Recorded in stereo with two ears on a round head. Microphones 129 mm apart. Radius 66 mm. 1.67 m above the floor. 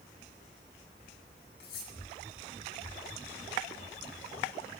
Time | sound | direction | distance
1.6 | cutlery clinking | 75° left (ahead or behind) | 8.5 m